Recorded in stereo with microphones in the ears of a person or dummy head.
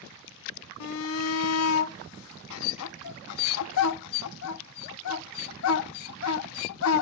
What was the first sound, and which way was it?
A shout, 85° left.